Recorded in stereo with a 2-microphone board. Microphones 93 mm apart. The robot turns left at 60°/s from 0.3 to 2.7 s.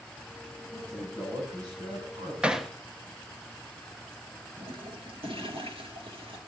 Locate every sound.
0.7 s a man speaking: 20° left, 9 m; by 2.3 s 75° right, 9 m
2.4 s hammering: 10° right (ahead or behind), 1.0 m; by 2.7 s 5° left (ahead or behind), 1.0 m
4.6 s a toilet flushing: 75° right (ahead or behind), 2.5 m